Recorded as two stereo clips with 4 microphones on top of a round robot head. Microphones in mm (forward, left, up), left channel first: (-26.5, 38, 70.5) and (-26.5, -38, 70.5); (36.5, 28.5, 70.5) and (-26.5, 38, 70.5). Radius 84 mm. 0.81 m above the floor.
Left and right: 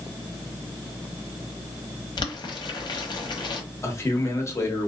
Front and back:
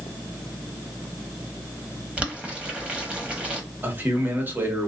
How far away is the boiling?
About 1.2 m.